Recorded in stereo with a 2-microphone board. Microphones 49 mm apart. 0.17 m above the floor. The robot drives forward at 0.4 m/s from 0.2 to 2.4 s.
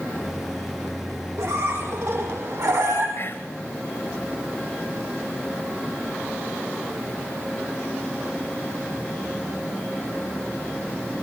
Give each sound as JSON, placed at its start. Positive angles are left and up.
{"t": 1.4, "sound": "a squeak", "side_deg": -70, "distance_m": 5.5}
{"t": 3.2, "sound": "whispering", "side_deg": 40, "distance_m": 3.0}